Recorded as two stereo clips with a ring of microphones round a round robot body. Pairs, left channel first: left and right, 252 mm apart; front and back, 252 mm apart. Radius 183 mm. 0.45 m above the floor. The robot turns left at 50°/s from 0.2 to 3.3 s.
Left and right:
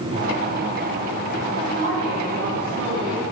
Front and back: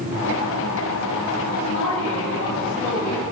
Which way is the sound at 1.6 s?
10° right.